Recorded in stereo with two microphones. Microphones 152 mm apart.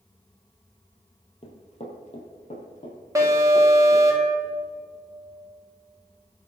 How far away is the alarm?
About 2 m.